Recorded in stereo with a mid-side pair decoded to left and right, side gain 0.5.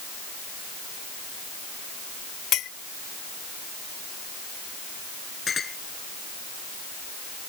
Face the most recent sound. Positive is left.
turn(degrees=35)